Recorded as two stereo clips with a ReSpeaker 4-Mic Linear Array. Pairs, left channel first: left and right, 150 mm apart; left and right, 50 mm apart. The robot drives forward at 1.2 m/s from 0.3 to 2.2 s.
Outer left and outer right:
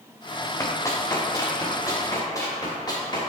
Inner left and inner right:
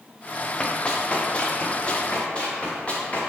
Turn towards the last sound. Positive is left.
turn(degrees=30)  # may be behind; listen again after turning